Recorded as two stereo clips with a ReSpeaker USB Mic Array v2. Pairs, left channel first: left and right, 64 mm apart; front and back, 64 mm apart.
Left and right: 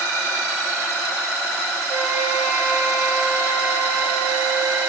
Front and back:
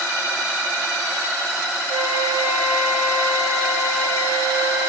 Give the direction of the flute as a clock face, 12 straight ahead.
5 o'clock.